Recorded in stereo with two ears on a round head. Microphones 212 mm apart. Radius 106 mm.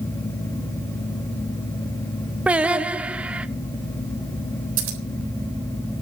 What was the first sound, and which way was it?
Singing, 5° right (ahead or behind).